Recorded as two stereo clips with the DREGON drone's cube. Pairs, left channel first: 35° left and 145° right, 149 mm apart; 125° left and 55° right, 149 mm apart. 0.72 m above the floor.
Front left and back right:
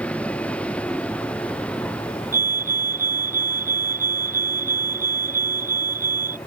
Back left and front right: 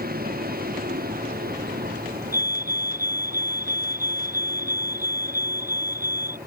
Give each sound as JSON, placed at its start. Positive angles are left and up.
{"t": 0.0, "sound": "a vehicle", "azimuth_deg": -45}
{"t": 2.3, "sound": "a fire alarm", "azimuth_deg": -130}